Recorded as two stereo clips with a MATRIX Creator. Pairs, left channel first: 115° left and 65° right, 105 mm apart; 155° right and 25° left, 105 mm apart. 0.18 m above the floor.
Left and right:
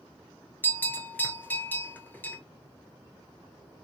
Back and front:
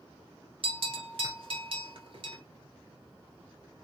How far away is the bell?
About 0.7 m.